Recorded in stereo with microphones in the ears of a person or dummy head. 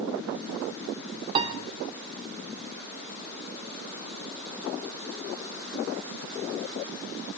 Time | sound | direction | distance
1.4 | a piano | 30° right (ahead or behind) | 1.1 m